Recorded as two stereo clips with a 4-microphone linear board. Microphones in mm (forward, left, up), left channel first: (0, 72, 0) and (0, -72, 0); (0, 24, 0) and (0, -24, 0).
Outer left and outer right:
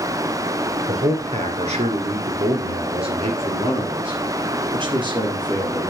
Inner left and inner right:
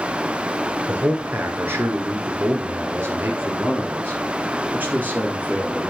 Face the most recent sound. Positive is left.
turn(degrees=-30)  # may be behind; listen again after turning